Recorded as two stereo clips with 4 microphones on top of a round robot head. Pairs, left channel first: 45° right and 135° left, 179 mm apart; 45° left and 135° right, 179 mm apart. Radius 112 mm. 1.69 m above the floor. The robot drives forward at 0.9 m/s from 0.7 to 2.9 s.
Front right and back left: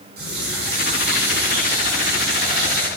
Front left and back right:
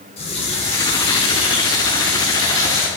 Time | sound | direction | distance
0.2 | a running tap | 100° left | 7 m